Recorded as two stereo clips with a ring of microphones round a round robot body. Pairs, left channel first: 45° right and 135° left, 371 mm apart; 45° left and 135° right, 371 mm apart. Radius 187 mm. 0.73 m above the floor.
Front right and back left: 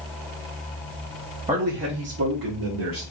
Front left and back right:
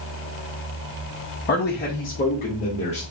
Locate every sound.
1.5 s a man speaking: 80° left, 0.8 m; by 3.0 s 115° left, 1.5 m